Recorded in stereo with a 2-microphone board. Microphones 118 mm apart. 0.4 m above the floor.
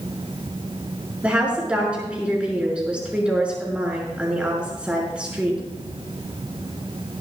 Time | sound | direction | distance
1.2 | a woman speaking | 10° right (ahead or behind) | 5.5 m